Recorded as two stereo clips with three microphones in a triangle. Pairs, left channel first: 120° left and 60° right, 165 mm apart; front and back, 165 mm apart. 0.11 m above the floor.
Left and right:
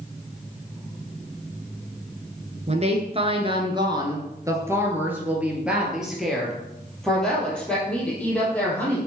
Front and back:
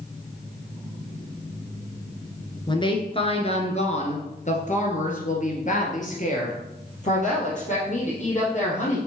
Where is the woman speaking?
45° right, 2.0 m; by 9.0 s 40° left, 4.5 m.